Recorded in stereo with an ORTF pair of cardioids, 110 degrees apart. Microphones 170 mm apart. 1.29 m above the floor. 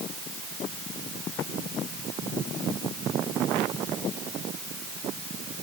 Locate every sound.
Only background noise.